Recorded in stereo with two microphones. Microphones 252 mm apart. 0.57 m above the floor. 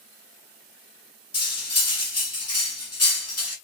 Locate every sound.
1.3 s cutlery clinking: 65° left (ahead or behind), 1.2 m